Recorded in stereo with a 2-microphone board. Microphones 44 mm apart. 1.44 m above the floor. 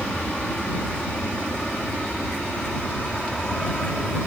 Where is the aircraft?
25° left (ahead or behind); by 4.3 s 20° left (ahead or behind).